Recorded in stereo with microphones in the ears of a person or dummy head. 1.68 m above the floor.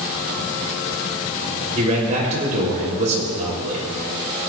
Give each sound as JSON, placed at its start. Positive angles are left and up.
{"t": 1.8, "sound": "a man speaking", "side_deg": -45, "distance_m": 5.0}